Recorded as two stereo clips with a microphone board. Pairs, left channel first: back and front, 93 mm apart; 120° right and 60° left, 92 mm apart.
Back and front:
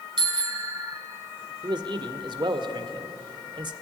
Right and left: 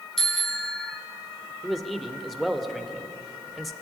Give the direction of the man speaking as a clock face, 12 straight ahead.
1 o'clock.